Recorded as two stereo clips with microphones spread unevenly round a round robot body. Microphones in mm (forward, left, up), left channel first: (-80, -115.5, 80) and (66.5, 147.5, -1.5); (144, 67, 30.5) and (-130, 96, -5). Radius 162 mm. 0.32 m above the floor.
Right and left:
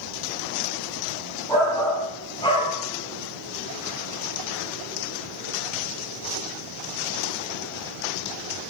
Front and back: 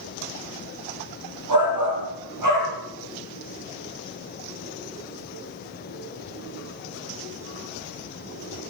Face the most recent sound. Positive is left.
turn(degrees=165)